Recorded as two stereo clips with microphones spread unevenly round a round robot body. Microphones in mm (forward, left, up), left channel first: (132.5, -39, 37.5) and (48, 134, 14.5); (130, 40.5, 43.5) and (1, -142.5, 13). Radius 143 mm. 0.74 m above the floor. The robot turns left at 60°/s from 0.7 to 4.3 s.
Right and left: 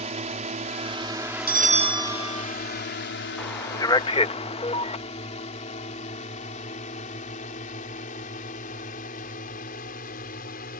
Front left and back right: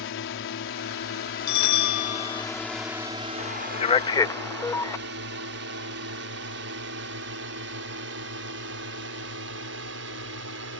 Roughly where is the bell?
Left.